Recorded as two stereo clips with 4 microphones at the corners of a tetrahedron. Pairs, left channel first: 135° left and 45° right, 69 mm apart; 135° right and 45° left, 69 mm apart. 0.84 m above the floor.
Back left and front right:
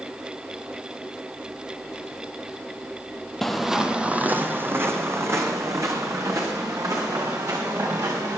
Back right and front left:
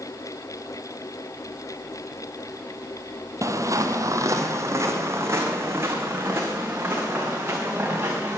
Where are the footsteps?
50° left, 1.2 m; by 8.4 s 15° right, 5 m.